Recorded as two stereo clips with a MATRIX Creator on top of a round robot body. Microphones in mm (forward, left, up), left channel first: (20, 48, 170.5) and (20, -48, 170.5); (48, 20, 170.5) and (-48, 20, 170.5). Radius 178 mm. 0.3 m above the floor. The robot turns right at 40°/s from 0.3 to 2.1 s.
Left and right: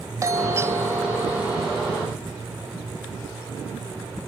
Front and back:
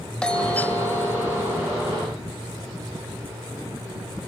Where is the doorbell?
70° right, 1.6 m; by 1.8 s 10° right, 1.6 m.